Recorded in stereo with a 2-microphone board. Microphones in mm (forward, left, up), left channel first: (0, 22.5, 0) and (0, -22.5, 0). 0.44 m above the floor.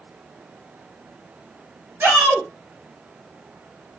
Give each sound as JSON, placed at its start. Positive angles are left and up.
{"t": 2.0, "sound": "a shout", "side_deg": -70, "distance_m": 2.0}